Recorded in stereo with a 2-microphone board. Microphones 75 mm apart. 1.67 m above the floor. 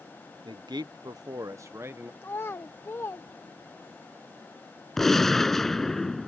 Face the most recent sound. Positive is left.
turn(degrees=5)  # may be behind; listen again after turning